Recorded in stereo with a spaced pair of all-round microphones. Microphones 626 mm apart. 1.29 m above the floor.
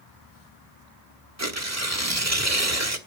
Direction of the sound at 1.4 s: 25° right (ahead or behind).